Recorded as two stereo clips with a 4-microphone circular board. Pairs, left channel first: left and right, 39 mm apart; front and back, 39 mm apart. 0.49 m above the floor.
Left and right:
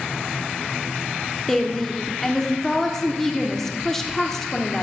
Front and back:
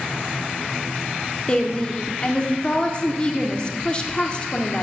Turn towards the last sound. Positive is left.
turn(degrees=20)